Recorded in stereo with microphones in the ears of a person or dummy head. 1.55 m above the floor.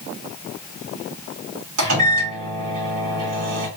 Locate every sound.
1.8 s a microwave: 80° right, 1.9 m